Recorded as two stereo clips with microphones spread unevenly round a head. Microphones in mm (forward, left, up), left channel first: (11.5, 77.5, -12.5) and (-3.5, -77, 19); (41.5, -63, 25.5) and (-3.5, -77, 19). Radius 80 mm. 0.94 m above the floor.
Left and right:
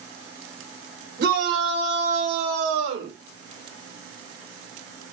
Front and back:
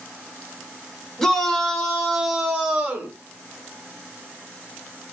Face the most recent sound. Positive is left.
turn(degrees=-100)